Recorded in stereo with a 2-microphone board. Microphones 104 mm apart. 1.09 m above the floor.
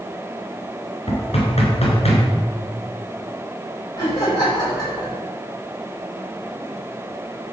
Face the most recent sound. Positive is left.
turn(degrees=40)  # may be behind; listen again after turning